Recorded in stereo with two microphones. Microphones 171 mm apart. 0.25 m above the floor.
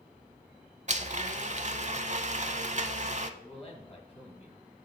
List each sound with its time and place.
0.9 s a blender: 45° right (ahead or behind), 0.5 m
3.4 s a man speaking: 35° left (ahead or behind), 2 m